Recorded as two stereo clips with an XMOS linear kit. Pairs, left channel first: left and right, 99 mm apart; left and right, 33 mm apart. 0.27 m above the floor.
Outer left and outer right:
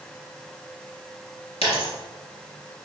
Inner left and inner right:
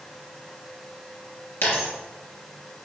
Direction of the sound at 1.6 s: 80° left.